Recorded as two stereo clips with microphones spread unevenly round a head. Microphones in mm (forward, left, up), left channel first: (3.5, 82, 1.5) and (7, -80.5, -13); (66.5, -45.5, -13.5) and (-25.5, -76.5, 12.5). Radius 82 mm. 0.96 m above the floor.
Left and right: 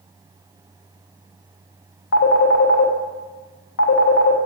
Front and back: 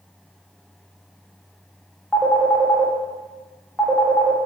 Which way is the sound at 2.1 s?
105° left.